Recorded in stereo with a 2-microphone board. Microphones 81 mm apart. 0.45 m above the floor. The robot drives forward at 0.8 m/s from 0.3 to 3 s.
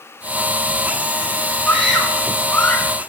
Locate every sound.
1.7 s a scream: 10° left (ahead or behind), 5 m